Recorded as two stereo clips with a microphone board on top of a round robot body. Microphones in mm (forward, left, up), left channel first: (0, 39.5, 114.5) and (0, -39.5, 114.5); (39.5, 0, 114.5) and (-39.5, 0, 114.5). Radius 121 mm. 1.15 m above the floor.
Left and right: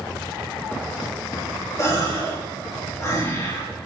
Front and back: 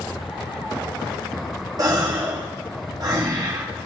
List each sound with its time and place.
1.8 s a gasp: 140° left, 2.5 m